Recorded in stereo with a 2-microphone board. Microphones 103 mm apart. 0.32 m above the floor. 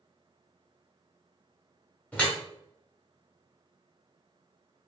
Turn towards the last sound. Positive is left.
turn(degrees=10)  # may be behind; listen again after turning